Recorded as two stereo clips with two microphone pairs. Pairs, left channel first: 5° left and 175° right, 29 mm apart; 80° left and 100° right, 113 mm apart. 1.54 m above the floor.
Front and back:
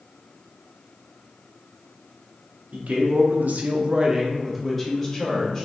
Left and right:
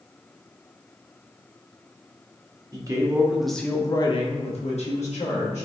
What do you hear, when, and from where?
2.7 s a man speaking: 155° right, 0.8 m; by 5.7 s 85° left, 1.2 m